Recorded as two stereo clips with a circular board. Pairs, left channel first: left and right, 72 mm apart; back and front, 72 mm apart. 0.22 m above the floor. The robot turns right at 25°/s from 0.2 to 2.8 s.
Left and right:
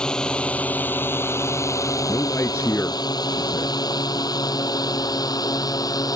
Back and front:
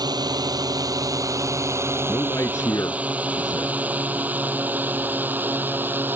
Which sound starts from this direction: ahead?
A drone, at 0.0 s.